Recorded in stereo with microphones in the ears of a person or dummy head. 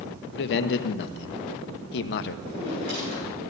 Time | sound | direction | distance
0.3 | a man speaking | 60° left (ahead or behind) | 1.0 m
2.5 | a drawer | 50° right (ahead or behind) | 7 m